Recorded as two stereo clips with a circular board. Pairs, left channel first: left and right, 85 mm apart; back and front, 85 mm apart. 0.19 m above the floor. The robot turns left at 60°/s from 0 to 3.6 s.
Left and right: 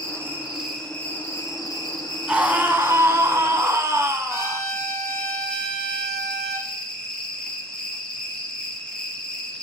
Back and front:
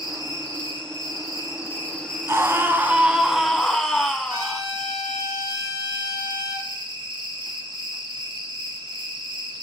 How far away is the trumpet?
About 4 m.